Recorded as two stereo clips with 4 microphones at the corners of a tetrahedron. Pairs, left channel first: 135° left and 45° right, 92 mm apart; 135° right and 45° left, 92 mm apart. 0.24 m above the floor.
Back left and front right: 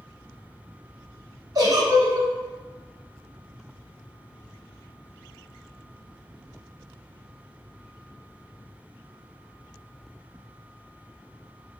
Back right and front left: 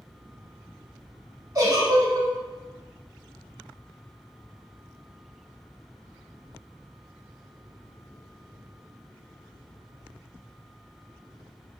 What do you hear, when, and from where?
1.6 s a giggle: 5° right, 0.8 m